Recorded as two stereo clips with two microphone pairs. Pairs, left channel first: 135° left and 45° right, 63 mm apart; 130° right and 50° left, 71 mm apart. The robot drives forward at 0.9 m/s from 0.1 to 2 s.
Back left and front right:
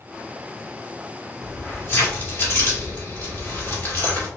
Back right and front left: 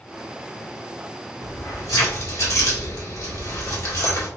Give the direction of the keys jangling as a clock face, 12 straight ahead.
5 o'clock.